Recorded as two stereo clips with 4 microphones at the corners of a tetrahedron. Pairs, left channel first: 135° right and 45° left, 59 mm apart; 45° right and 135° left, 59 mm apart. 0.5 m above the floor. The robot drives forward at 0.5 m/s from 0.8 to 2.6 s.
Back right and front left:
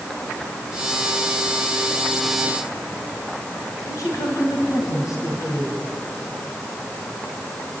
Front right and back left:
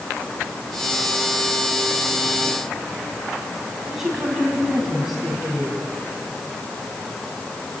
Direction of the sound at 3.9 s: 140° right.